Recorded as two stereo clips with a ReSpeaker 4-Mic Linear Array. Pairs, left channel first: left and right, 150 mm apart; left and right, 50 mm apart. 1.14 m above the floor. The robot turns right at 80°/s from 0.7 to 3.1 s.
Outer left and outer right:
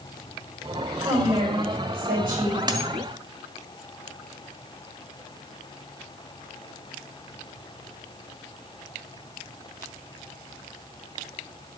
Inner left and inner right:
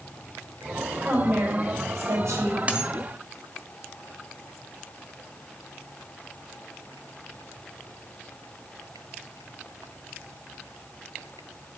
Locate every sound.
1.0 s a woman speaking: 175° right, 5 m; by 2.6 s 50° right, 5 m
2.7 s a dropped coin: 30° right (ahead or behind), 1.6 m; by 2.9 s 15° right (ahead or behind), 1.6 m